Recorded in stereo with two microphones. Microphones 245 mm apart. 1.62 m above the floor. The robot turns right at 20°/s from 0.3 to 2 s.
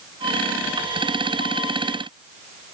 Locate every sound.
Only background noise.